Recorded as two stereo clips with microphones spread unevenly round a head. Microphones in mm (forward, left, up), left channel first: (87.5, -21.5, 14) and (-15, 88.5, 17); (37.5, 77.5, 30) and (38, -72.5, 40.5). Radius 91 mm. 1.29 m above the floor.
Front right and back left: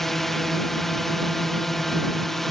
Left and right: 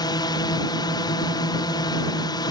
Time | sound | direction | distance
0.0 | a drone | 40° left | ?